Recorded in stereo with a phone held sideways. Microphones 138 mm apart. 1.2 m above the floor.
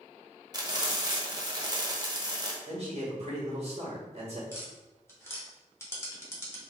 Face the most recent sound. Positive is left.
turn(degrees=20)  # may be behind; listen again after turning